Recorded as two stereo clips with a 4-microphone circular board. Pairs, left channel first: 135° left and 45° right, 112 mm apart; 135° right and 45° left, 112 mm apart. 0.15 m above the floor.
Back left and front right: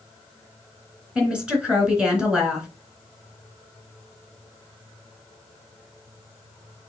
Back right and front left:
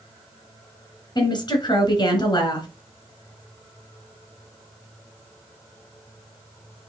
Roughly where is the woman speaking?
Behind right.